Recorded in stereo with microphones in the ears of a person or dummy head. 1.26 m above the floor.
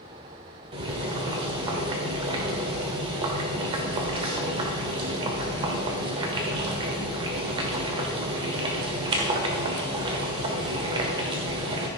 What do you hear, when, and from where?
0.7 s boiling: 25° right (ahead or behind), 1.2 m